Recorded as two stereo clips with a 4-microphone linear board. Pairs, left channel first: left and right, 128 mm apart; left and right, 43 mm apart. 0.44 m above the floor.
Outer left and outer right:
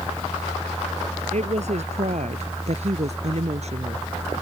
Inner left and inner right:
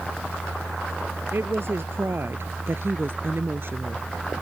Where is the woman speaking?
70° right (ahead or behind); by 4.1 s 60° right (ahead or behind).